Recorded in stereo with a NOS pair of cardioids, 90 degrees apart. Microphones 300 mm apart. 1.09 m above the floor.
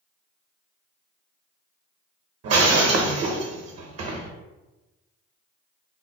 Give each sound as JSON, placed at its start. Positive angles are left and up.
{"t": 2.4, "sound": "breaking glass", "azimuth_deg": -50, "distance_m": 0.8}